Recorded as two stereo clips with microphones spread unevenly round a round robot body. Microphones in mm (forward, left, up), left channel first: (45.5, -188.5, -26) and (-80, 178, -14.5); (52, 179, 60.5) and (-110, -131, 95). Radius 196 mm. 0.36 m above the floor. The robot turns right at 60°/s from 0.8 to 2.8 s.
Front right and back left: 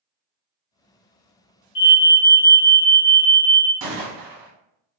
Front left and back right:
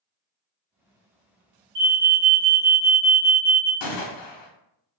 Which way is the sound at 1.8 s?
80° right.